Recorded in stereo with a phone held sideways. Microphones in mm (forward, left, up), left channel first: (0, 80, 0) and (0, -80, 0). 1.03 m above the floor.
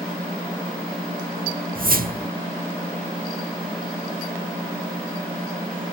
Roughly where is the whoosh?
Right.